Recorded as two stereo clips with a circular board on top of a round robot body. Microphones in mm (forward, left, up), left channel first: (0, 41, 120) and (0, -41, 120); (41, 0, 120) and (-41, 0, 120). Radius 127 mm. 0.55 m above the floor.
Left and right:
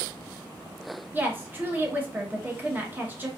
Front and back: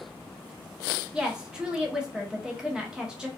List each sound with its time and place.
1.1 s a woman speaking: 115° right, 0.9 m